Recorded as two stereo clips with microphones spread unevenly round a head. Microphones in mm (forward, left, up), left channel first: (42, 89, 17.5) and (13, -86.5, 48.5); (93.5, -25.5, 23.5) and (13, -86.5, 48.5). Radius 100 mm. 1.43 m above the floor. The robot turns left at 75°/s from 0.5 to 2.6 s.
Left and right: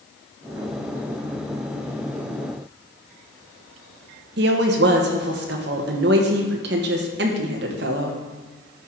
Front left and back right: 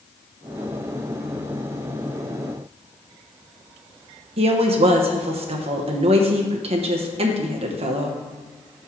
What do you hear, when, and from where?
4.4 s a woman speaking: 135° right, 0.9 m